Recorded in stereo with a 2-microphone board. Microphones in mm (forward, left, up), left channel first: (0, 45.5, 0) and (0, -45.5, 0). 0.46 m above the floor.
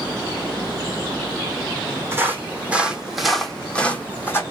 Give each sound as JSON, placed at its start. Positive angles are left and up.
{"t": 2.1, "sound": "footsteps", "side_deg": -30, "distance_m": 1.3}